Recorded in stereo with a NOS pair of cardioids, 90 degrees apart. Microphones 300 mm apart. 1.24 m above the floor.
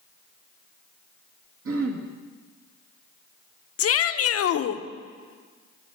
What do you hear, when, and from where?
1.6 s throat clearing: 50° right, 1.6 m
3.8 s a shout: 50° left, 0.8 m